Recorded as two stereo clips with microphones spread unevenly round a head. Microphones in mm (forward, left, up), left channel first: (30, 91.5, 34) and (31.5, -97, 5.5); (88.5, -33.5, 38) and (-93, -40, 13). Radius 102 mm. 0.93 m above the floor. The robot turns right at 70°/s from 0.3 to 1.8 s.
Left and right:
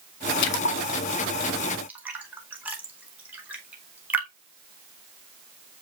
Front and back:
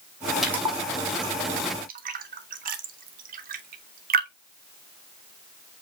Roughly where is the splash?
Left.